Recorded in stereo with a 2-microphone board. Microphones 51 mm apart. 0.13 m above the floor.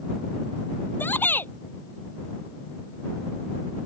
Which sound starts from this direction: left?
A shout, at 1.0 s.